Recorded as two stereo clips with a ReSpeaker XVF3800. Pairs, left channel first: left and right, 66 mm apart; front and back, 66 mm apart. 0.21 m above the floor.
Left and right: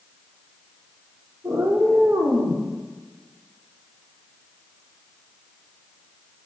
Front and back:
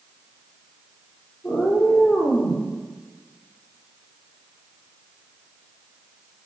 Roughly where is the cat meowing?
Ahead right.